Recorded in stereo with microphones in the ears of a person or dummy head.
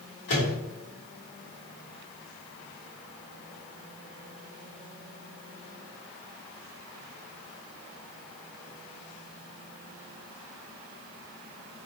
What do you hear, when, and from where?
0.3 s a microwave: 70° left (ahead or behind), 1.4 m